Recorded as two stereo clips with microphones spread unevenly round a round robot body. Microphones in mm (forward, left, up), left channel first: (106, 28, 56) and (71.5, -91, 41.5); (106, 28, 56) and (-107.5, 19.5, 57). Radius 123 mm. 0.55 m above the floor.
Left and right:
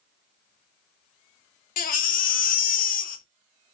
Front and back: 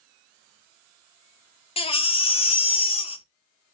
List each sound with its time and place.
1.8 s a baby crying: 70° left, 0.5 m